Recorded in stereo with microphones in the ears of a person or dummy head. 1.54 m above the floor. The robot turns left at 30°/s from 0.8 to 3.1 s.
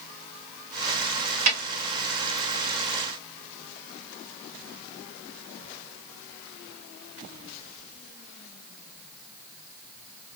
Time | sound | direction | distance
1.5 | a snare drum | 70° right (ahead or behind) | 2.0 m